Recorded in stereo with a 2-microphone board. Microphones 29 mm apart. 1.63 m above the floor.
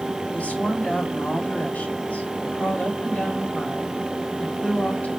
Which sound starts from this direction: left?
A woman speaking, at 0.3 s.